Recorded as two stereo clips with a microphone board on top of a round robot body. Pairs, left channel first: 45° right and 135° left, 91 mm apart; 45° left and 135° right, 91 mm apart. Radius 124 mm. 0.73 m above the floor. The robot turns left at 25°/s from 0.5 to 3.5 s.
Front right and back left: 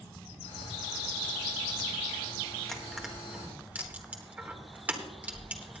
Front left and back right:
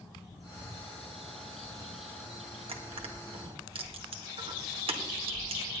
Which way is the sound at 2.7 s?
130° right.